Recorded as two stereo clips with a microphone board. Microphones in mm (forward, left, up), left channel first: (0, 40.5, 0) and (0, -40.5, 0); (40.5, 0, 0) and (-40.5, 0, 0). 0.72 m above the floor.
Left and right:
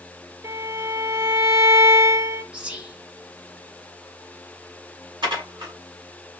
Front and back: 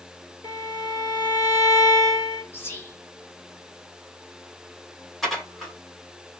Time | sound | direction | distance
0.4 | a violin | 40° right | 1.4 m
2.5 | whispering | 30° right | 0.8 m
5.2 | dishes clattering | 90° right | 1.2 m